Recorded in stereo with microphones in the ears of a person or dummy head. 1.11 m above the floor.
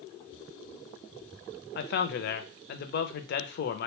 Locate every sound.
1.8 s a man speaking: 55° left (ahead or behind), 0.5 m